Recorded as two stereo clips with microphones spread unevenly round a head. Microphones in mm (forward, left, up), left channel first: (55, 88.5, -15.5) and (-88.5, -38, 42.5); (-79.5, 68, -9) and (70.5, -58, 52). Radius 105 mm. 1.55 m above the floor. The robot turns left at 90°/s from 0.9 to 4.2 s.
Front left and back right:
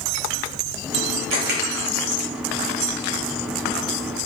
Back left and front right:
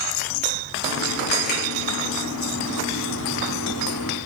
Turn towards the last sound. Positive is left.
turn(degrees=-55)